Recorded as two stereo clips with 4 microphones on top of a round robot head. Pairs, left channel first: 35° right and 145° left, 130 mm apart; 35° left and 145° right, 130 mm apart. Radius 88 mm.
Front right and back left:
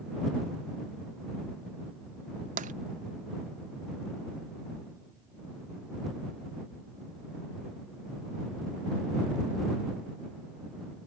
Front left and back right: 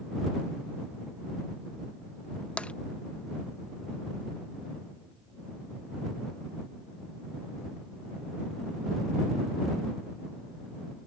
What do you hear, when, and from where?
2.6 s tapping: 115° left